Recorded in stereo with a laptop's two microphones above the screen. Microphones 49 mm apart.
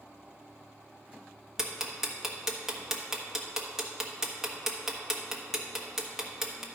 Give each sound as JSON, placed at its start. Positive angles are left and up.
{"t": 1.6, "sound": "ticking", "side_deg": -10, "distance_m": 1.1}